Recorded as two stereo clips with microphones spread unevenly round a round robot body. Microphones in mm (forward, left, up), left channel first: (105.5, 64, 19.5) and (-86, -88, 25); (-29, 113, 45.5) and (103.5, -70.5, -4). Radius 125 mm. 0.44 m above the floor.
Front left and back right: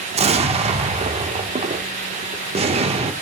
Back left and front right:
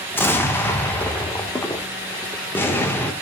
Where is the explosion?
135° right, 1.4 m.